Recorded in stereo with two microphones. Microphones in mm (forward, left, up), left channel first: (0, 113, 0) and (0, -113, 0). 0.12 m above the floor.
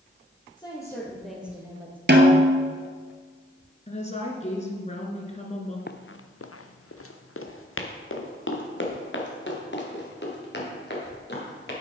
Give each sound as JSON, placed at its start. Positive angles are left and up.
{"t": 0.6, "sound": "a woman speaking", "side_deg": 20, "distance_m": 3.0}
{"t": 2.1, "sound": "a snare drum", "side_deg": -50, "distance_m": 1.3}
{"t": 3.9, "sound": "a woman speaking", "side_deg": 30, "distance_m": 1.6}
{"t": 5.9, "sound": "running footsteps", "side_deg": 45, "distance_m": 0.6}